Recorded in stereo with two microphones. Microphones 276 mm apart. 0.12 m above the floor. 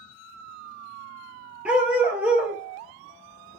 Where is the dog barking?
5° right (ahead or behind), 1.1 m.